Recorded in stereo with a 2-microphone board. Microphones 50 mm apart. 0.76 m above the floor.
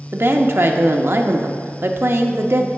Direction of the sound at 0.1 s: 50° right (ahead or behind).